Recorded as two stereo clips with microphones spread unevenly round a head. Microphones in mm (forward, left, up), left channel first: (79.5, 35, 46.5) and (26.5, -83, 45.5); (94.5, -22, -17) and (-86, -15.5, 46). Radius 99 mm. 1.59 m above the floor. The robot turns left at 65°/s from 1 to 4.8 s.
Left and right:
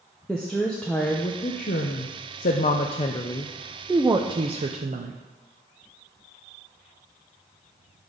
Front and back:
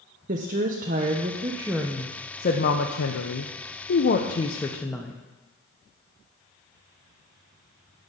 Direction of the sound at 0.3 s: 150° left.